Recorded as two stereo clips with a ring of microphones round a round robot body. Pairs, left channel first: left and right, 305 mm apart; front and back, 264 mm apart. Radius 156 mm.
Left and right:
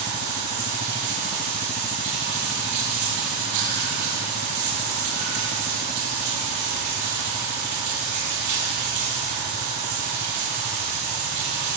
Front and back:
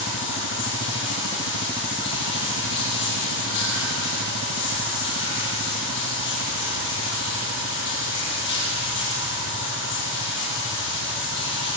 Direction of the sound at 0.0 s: 55° right.